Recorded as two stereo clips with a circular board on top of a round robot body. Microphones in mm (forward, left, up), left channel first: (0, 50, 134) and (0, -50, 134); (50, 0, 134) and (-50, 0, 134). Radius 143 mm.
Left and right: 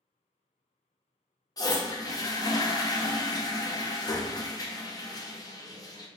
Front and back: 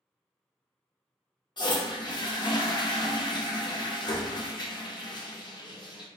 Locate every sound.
1.6 s a toilet flushing: 40° left, 0.8 m